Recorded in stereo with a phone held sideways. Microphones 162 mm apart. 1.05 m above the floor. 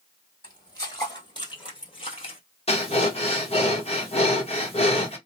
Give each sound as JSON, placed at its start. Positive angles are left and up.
{"t": 0.4, "sound": "footsteps", "side_deg": 20, "distance_m": 2.0}
{"t": 2.7, "sound": "breathing", "side_deg": 40, "distance_m": 1.2}